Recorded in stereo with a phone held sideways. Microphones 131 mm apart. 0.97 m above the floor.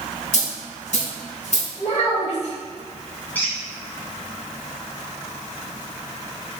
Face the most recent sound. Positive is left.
turn(degrees=15)  # may be behind; listen again after turning